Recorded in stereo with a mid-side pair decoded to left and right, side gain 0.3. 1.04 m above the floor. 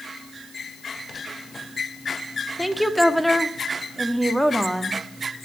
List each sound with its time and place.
2.6 s a woman speaking: 5° right, 1.6 m